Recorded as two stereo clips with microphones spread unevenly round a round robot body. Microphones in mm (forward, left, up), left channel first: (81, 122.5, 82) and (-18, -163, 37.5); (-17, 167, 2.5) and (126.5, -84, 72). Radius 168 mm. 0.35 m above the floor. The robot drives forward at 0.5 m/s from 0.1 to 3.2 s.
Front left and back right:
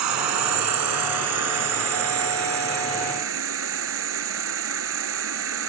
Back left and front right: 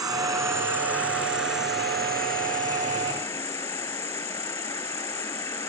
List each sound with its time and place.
0.0 s an insect: 140° right; by 5.7 s 160° right